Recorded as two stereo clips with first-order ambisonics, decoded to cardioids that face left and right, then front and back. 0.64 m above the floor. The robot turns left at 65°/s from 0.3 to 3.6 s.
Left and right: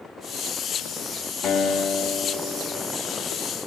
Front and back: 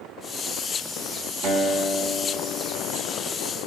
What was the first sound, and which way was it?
A guitar, 155° left.